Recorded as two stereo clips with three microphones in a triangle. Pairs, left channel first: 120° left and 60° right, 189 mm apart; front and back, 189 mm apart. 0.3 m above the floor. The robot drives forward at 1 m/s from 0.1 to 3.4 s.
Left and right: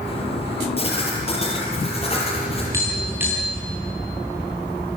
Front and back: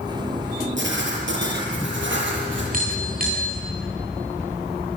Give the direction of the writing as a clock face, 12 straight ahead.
6 o'clock.